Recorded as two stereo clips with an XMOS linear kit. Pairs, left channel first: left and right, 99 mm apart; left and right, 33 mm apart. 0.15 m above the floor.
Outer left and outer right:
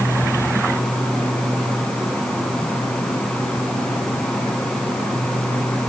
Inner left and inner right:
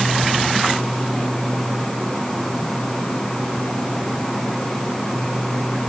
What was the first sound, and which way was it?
Only background noise.